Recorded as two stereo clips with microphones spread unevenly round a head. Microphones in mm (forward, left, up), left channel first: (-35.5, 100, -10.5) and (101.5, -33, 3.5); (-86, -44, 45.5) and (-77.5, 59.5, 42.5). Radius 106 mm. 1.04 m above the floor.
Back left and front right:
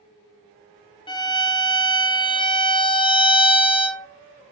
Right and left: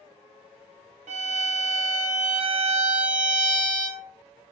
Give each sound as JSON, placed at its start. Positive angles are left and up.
{"t": 1.1, "sound": "a violin", "azimuth_deg": 70, "distance_m": 0.6}